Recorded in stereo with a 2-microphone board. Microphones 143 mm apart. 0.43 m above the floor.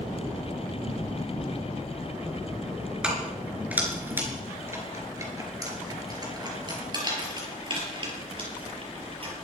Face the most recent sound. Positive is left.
turn(degrees=-40)  # may be behind; listen again after turning